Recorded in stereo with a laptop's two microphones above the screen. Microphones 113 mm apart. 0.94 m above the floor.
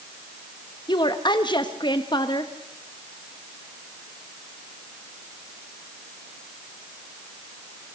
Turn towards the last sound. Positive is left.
turn(degrees=40)  # may be behind; listen again after turning